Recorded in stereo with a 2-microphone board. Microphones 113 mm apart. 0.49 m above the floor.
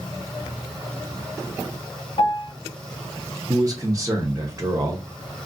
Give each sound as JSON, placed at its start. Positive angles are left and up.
{"t": 2.2, "sound": "a piano", "side_deg": 60, "distance_m": 0.8}
{"t": 3.5, "sound": "a man speaking", "side_deg": -30, "distance_m": 0.8}